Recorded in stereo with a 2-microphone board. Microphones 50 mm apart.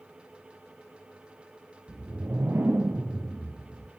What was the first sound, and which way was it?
A whoosh, 50° right (ahead or behind).